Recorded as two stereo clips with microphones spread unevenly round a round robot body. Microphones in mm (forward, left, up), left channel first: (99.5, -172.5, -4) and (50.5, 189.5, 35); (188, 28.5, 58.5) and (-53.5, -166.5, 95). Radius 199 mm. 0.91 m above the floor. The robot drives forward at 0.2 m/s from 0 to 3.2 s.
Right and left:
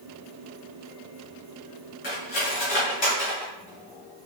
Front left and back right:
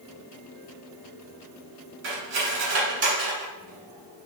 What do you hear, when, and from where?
2.0 s cutlery clinking: 155° right, 1.6 m